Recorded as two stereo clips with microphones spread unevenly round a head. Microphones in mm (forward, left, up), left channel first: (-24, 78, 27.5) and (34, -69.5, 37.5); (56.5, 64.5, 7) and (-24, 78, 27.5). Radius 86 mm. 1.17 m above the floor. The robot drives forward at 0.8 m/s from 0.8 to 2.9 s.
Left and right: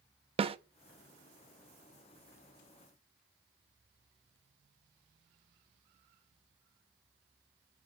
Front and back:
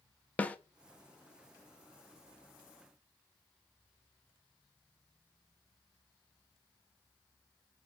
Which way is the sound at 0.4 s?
40° right.